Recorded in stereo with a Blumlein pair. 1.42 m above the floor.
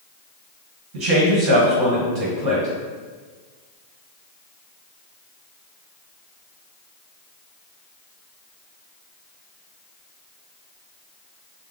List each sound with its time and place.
0.9 s a man speaking: 50° right, 1.2 m